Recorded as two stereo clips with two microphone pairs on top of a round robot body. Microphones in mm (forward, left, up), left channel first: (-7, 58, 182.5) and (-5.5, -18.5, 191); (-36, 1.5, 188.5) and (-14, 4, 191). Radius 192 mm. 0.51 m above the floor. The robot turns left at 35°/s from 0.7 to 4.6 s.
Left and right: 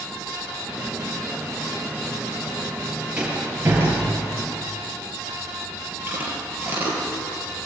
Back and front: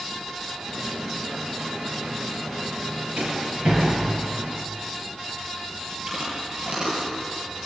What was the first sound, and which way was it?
A rattle, 10° right.